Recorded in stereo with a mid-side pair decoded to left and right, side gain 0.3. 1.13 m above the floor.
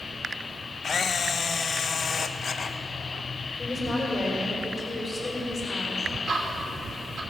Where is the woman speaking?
40° left, 5.5 m.